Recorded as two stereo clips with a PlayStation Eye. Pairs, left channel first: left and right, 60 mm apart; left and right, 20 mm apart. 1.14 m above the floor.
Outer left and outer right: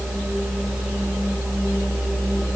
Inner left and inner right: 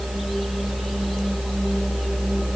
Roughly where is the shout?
I don't hear a shout.